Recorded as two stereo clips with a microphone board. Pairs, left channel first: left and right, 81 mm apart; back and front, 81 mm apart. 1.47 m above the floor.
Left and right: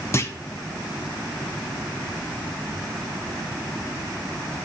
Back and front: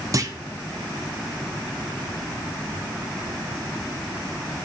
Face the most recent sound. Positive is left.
turn(degrees=40)